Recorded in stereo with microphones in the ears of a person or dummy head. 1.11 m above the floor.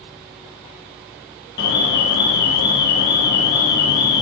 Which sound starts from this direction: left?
An alarm, at 1.6 s.